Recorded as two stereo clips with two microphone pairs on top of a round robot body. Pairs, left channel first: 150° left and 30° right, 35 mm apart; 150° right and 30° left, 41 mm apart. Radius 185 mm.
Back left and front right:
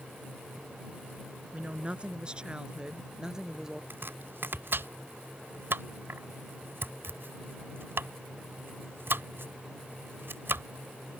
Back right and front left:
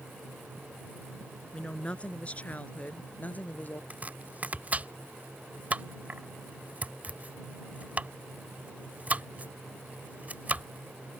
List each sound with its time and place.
1.5 s a woman speaking: 85° right; by 3.8 s 105° right
3.9 s chopping: 25° right